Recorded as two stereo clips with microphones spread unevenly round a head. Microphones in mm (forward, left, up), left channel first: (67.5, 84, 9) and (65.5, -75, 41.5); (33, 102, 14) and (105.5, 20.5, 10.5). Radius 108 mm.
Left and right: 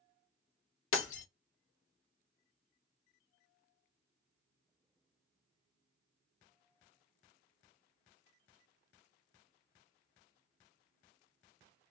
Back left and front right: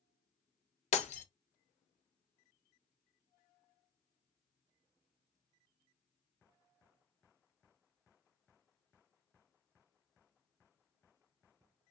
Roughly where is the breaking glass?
Behind left.